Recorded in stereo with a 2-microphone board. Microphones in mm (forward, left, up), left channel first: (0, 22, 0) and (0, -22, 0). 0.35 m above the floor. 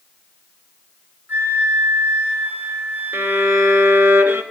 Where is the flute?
45° right (ahead or behind), 5.5 m.